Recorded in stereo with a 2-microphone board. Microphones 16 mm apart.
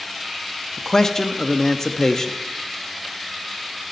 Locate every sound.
0.8 s a man speaking: 35° left (ahead or behind), 0.7 m